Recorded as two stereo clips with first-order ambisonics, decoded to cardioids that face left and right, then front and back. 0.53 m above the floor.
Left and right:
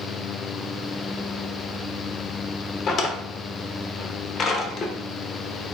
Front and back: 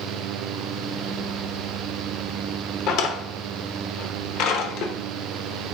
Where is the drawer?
35° left, 0.7 m.